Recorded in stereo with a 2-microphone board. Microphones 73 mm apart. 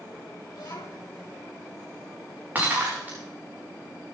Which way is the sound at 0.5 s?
75° left (ahead or behind).